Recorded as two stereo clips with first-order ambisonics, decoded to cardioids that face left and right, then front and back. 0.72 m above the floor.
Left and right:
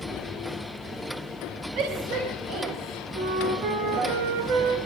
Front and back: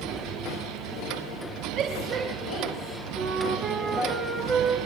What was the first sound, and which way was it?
A shout, 130° right.